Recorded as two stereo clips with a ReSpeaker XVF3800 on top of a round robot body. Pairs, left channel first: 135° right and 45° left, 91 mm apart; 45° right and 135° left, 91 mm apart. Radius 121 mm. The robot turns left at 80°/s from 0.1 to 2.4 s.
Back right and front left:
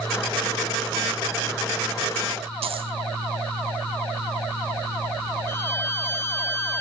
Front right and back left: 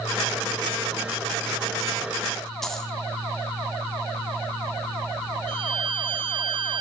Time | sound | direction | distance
2.6 | a dropped coin | 40° left | 4 m
5.5 | a violin | 160° left | 1.9 m